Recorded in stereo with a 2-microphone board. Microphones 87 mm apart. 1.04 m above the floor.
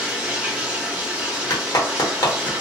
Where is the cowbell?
I don't hear a cowbell.